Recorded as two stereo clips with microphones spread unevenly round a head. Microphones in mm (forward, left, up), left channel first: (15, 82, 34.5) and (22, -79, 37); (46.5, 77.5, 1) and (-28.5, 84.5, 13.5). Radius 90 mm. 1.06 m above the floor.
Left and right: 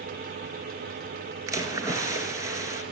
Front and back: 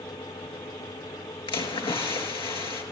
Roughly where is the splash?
Ahead.